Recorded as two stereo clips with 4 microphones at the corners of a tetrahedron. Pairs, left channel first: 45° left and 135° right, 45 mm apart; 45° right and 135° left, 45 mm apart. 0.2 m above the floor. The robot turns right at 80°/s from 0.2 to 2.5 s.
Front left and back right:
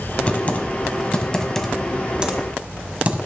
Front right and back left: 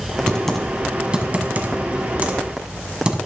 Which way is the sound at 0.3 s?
15° left.